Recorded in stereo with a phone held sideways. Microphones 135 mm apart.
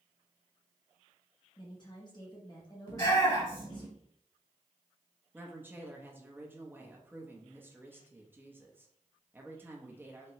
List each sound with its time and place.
1.6 s a woman speaking: 35° left (ahead or behind), 0.8 m
2.9 s a shout: 30° left (ahead or behind), 2 m
5.3 s a woman speaking: 15° right (ahead or behind), 0.7 m